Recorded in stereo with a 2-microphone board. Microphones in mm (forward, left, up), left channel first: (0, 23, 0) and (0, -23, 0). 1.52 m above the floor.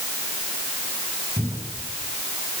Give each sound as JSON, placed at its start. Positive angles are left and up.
{"t": 1.4, "sound": "a cupboard door", "side_deg": -90, "distance_m": 9.5}